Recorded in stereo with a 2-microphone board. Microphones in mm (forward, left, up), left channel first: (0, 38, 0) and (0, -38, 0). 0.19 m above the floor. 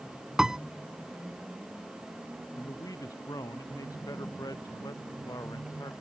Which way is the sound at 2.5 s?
50° left (ahead or behind).